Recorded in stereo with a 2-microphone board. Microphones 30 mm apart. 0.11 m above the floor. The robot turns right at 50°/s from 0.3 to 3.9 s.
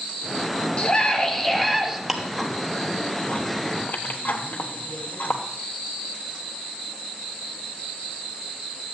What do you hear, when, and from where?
0.8 s a scream: 135° left, 1.6 m; by 2.0 s 165° right, 1.6 m
2.1 s ticking: 10° right (ahead or behind), 1.2 m; by 5.4 s 65° left (ahead or behind), 1.2 m